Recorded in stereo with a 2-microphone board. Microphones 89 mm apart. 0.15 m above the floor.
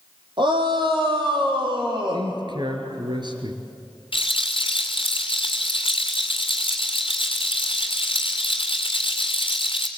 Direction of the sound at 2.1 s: 55° right (ahead or behind).